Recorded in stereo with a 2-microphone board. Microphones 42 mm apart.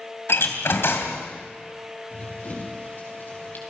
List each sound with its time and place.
0.3 s a door slam: 80° left, 2.5 m
2.1 s running footsteps: 45° left (ahead or behind), 7 m; by 3.6 s 50° left (ahead or behind), 5.5 m